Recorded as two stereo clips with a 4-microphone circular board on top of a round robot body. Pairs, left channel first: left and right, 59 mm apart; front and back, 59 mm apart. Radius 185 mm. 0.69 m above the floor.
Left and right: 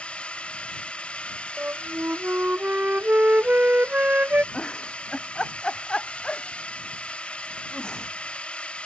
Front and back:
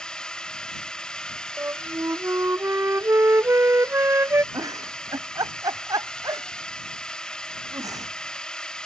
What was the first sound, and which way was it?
A drone, 55° left.